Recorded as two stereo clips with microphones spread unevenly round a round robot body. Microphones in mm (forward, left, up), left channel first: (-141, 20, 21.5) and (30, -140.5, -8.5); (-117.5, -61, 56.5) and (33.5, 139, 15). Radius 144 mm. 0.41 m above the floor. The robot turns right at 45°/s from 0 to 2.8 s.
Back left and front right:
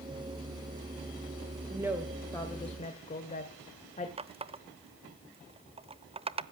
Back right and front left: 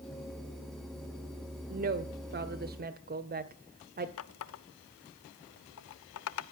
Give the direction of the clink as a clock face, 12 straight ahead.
I don't hear a clink.